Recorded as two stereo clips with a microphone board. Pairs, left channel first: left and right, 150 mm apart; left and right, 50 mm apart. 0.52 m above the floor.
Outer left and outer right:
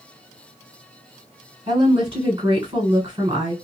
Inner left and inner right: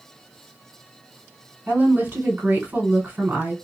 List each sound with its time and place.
1.7 s a woman speaking: 45° right (ahead or behind), 1.8 m